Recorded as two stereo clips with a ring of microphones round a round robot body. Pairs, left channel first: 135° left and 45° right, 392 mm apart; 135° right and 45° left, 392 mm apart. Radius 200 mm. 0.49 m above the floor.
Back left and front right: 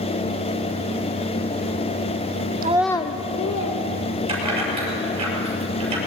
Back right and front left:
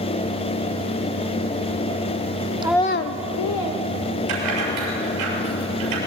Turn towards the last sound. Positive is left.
turn(degrees=30)